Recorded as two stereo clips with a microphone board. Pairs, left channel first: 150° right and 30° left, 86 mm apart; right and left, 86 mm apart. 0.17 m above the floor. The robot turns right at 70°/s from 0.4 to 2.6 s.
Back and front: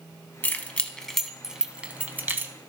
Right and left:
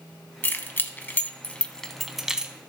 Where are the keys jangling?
115° right, 0.7 m; by 2.5 s 30° left, 0.7 m.